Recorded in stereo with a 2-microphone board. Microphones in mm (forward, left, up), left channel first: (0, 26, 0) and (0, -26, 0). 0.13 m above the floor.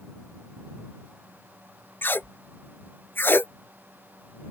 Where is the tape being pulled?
50° left (ahead or behind).